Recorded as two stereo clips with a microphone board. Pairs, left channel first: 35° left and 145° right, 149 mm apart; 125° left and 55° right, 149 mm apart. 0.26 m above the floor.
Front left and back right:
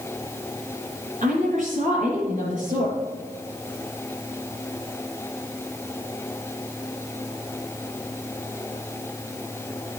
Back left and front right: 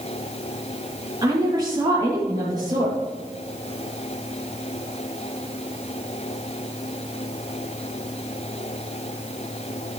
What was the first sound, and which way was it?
A woman speaking, 115° right.